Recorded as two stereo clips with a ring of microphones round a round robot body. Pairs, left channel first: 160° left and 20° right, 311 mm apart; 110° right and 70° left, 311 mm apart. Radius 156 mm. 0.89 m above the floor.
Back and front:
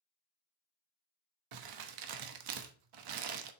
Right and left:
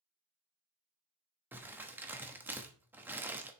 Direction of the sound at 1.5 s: 15° right.